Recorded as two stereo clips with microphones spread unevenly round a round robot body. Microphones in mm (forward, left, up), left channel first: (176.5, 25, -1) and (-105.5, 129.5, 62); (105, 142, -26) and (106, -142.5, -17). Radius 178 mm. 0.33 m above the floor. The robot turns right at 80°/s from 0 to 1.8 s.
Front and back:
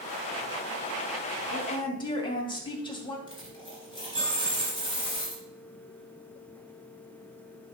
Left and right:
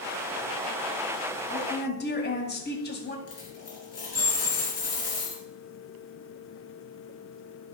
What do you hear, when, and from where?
1.5 s a woman speaking: 20° left, 2 m; by 3.2 s 45° left, 2 m
3.3 s a dropped coin: 55° left, 3 m